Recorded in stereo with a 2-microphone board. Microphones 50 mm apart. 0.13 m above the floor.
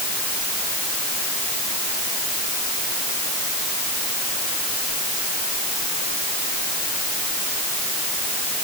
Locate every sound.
Only background noise.